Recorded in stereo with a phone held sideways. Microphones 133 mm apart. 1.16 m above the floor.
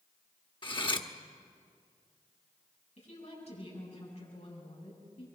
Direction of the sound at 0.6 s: 40° left (ahead or behind).